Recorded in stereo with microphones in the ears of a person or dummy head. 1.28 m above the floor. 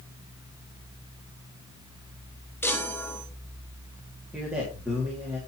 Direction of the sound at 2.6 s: 10° left (ahead or behind).